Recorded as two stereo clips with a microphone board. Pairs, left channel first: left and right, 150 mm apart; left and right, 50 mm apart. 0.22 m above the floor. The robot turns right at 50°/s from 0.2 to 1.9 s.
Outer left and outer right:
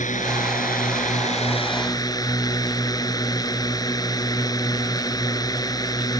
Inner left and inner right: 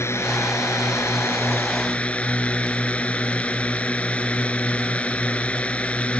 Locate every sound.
0.0 s a drone: 70° left; by 6.2 s 155° left